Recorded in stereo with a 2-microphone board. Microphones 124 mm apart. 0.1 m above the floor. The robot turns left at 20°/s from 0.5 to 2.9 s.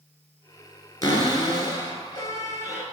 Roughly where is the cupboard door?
Left.